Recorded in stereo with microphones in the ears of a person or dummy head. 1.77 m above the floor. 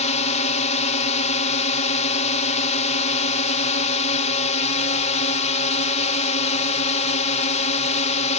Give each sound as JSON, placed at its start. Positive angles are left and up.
{"t": 0.0, "sound": "a drone", "side_deg": 40}